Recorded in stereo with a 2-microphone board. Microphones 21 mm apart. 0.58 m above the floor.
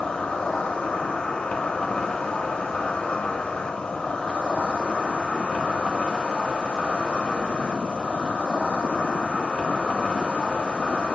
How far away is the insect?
About 0.8 m.